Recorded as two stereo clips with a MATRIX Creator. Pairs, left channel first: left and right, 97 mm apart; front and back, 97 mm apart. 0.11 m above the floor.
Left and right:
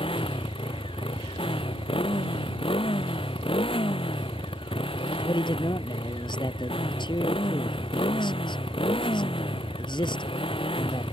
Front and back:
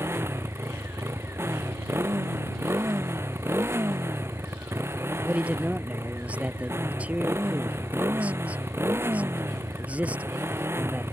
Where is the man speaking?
105° left.